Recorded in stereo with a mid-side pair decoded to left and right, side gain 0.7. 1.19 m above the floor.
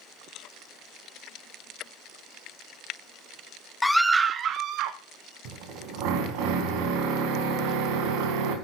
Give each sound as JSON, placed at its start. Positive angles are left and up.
{"t": 3.8, "sound": "a scream", "azimuth_deg": 15, "distance_m": 0.5}
{"t": 5.5, "sound": "a drill", "azimuth_deg": -70, "distance_m": 3.5}